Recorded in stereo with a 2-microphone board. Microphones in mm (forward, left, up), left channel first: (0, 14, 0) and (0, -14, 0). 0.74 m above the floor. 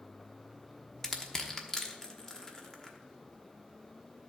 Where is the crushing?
20° left (ahead or behind), 1.1 m.